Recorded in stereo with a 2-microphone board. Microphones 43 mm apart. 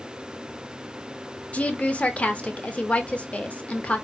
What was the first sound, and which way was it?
A woman speaking, 30° left (ahead or behind).